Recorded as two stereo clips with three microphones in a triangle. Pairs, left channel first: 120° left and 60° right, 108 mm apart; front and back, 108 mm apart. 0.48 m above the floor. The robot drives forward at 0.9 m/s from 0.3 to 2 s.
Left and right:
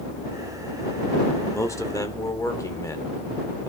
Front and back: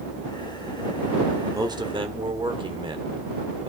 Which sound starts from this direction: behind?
A man speaking, at 1.5 s.